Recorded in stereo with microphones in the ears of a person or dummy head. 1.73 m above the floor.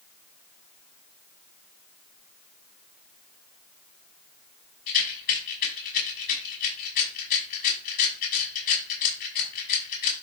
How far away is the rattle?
About 6 m.